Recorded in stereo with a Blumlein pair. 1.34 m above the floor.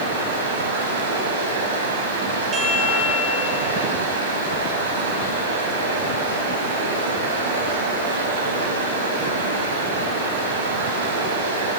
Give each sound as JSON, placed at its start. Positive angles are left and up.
{"t": 0.0, "sound": "running water", "azimuth_deg": -60, "distance_m": 6.0}
{"t": 2.5, "sound": "a chime", "azimuth_deg": -25, "distance_m": 6.5}